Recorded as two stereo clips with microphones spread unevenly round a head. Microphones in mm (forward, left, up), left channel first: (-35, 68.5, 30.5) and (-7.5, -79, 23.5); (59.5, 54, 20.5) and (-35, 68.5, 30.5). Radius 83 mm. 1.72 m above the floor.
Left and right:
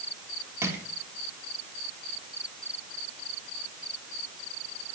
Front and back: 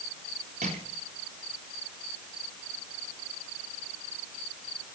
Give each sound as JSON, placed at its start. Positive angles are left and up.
{"t": 0.6, "sound": "crushing", "azimuth_deg": -155, "distance_m": 3.5}